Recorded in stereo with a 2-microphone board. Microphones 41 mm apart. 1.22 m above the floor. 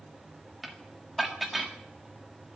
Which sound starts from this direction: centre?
Dishes clattering, at 0.6 s.